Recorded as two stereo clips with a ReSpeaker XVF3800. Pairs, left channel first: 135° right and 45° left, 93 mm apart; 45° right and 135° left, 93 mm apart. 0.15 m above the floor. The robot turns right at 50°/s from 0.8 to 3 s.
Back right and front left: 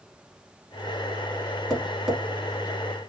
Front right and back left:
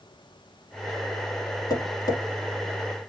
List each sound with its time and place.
1.7 s tapping: 55° right, 1.2 m; by 2.2 s 30° right, 1.2 m